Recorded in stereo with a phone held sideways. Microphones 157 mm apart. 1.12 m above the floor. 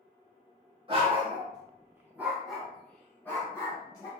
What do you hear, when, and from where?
0.9 s a dog barking: 35° right (ahead or behind), 0.9 m; by 4.1 s 20° left (ahead or behind), 1.4 m